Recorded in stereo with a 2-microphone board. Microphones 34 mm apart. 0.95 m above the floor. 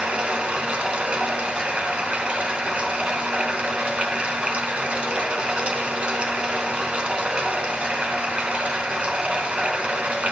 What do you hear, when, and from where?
0.0 s running water: 40° right (ahead or behind), 1.0 m